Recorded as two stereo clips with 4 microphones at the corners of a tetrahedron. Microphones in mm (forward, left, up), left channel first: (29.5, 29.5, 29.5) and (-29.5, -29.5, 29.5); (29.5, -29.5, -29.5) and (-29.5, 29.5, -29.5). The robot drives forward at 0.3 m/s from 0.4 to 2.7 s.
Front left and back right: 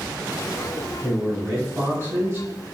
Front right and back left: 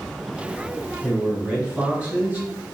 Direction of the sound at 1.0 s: 160° right.